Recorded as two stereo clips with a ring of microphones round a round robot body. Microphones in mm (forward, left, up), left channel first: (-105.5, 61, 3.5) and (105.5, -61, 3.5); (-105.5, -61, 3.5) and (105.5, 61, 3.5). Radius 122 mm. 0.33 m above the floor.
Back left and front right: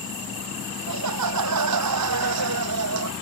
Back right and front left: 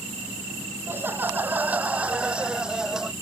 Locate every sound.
0.9 s laughter: 50° right; by 3.1 s 60° right